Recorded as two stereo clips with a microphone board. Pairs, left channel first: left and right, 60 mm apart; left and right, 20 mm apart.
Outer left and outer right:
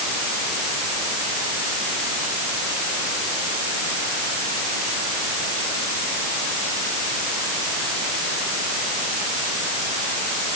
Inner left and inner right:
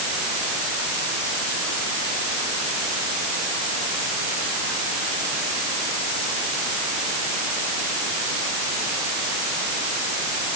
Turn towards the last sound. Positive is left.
No sound to turn to.